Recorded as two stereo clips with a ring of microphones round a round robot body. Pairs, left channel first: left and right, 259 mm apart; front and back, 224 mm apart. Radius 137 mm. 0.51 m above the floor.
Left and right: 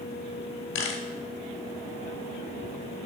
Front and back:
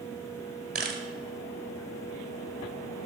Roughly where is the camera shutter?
Behind left.